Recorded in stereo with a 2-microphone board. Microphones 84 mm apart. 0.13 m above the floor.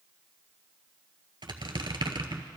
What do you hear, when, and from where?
1.4 s a squeak: 65° right (ahead or behind), 0.8 m